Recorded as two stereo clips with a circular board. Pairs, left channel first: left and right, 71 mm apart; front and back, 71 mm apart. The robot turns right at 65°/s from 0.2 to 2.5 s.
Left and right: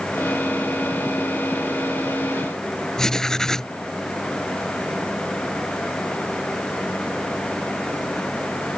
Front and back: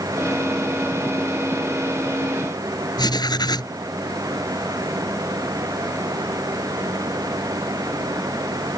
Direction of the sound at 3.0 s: 10° left.